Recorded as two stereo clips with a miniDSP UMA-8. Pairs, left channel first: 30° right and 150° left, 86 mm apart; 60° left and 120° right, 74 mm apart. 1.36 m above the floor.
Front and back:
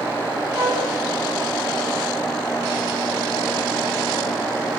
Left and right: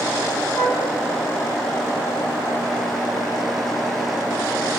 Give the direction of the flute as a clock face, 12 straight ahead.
8 o'clock.